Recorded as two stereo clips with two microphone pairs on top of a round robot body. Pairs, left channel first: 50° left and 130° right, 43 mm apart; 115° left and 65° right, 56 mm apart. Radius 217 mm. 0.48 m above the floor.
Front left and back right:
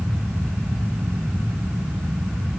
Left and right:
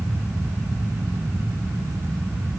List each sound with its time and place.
Only background noise.